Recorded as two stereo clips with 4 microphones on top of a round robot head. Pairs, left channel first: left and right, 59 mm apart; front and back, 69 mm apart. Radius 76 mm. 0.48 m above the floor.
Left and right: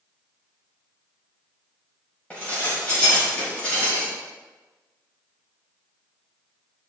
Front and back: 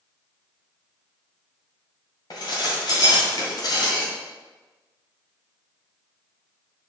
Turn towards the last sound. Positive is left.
turn(degrees=20)